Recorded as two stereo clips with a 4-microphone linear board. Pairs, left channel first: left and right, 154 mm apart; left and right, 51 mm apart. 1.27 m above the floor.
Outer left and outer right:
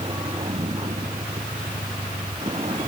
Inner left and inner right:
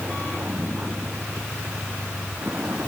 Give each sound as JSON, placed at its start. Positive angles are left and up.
{"t": 0.0, "sound": "a vehicle", "side_deg": -35}